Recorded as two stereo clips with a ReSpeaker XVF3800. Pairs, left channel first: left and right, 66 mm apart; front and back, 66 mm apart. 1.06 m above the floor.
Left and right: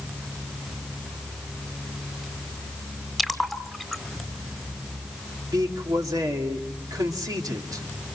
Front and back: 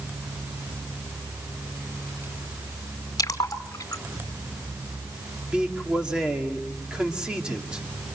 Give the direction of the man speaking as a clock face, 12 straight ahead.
3 o'clock.